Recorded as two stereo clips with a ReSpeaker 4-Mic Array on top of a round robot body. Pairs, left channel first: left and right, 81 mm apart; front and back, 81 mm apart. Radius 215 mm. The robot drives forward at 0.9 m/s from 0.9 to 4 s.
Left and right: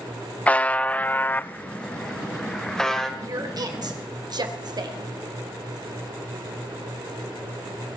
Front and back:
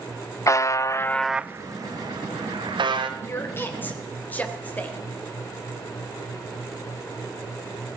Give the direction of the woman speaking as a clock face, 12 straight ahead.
2 o'clock.